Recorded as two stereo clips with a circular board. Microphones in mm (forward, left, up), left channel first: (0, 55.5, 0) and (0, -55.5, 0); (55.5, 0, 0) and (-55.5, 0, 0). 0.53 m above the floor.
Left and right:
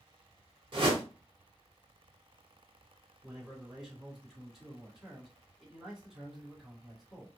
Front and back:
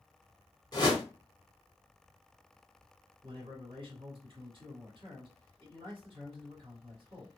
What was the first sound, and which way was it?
A whoosh, 50° right.